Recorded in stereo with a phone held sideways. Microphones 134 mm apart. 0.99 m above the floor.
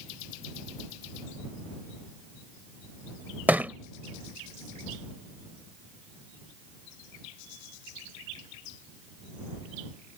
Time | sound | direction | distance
3.5 | a thud | 10° right (ahead or behind) | ?